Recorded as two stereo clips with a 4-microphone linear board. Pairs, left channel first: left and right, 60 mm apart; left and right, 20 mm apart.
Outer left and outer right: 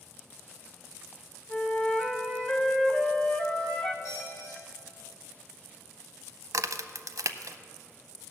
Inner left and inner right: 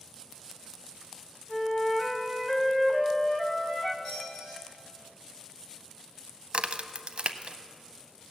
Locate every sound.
1.5 s a flute: 15° left (ahead or behind), 0.9 m
4.0 s a squeak: 50° left (ahead or behind), 5 m
6.5 s a crack: 65° right (ahead or behind), 0.5 m